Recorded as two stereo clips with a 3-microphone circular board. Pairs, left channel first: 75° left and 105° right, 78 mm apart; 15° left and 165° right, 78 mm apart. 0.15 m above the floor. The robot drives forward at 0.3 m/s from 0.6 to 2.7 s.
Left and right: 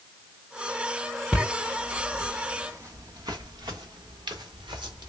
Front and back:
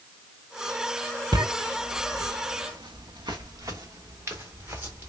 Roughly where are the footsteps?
Behind.